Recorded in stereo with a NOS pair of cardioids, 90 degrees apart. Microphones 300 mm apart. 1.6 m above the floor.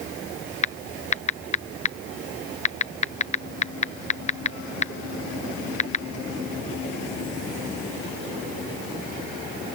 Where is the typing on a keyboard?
25° left.